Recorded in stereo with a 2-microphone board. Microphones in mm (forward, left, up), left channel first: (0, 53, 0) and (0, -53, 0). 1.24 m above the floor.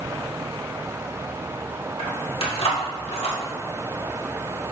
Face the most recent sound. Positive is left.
turn(degrees=75)  # may be behind; listen again after turning